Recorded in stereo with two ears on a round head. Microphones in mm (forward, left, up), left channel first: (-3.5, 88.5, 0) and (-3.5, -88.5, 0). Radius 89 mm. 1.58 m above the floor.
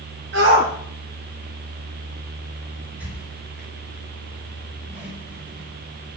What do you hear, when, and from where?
0.3 s a shout: 60° right (ahead or behind), 1.7 m
2.9 s a squeak: 10° right (ahead or behind), 5.5 m